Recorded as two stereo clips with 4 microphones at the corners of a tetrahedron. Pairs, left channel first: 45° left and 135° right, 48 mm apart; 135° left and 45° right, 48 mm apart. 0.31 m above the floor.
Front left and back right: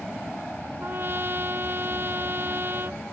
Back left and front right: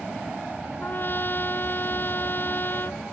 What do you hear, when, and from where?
0.8 s a trumpet: 175° right